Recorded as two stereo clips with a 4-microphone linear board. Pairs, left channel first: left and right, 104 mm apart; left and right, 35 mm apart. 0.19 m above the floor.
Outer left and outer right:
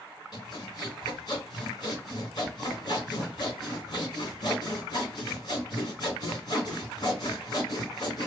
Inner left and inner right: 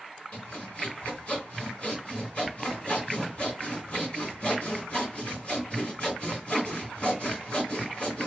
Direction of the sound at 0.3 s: 45° left (ahead or behind).